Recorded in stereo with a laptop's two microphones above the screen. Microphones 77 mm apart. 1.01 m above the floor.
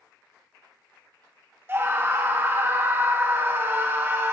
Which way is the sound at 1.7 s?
25° right (ahead or behind).